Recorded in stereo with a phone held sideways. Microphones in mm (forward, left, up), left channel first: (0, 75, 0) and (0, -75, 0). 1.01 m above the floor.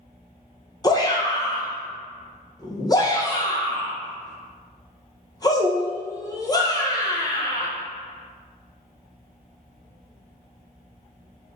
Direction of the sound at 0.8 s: 25° left (ahead or behind).